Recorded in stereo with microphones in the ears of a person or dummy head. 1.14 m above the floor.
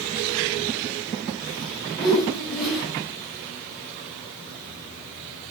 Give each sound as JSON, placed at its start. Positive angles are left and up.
{"t": 2.0, "sound": "a whoosh", "side_deg": 0, "distance_m": 7.0}